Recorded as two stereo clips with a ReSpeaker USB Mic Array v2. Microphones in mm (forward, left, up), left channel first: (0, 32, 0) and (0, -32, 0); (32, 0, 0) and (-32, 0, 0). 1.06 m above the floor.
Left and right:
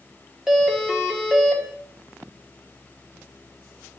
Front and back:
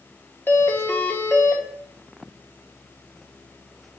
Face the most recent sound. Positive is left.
turn(degrees=-10)